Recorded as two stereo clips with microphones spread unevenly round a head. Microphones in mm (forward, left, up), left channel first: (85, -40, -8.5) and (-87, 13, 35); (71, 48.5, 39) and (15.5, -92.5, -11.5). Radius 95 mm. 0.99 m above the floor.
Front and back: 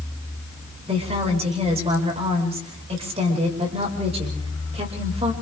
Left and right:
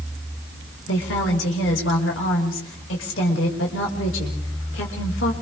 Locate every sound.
0.9 s a woman speaking: 100° left, 5 m